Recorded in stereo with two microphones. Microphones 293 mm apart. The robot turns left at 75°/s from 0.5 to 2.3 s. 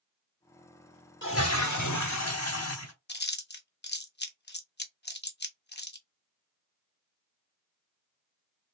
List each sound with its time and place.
1.2 s a toilet flushing: 140° left, 0.8 m; by 2.9 s 55° left, 0.8 m
3.1 s chewing: 35° left (ahead or behind), 0.8 m